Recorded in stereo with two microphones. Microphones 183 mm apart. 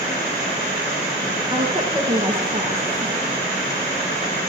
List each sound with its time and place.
1.5 s a woman speaking: 30° right (ahead or behind), 9 m